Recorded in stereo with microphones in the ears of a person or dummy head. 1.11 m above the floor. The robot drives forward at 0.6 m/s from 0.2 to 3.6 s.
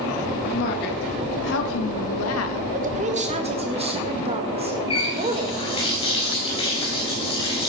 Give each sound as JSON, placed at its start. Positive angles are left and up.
{"t": 0.5, "sound": "a woman speaking", "side_deg": 50, "distance_m": 2.0}
{"t": 2.7, "sound": "a woman speaking", "side_deg": -40, "distance_m": 1.3}
{"t": 4.9, "sound": "a running tap", "side_deg": 30, "distance_m": 4.0}